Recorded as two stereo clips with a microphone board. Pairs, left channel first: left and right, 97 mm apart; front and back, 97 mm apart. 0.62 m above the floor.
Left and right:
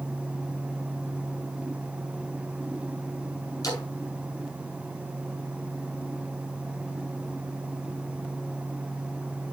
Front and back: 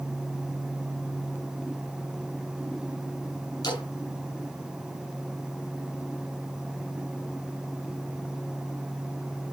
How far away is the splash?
About 5 m.